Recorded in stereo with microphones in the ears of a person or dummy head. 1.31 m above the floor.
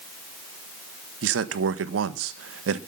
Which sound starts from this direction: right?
A man speaking, at 1.2 s.